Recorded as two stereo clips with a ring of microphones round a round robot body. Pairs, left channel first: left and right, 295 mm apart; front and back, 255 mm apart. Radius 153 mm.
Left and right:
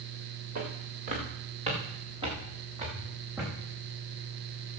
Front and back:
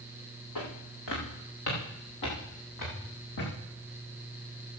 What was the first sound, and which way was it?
Footsteps, 25° right.